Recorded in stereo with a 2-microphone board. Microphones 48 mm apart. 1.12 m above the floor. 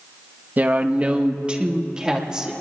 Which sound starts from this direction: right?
A woman speaking, at 0.6 s.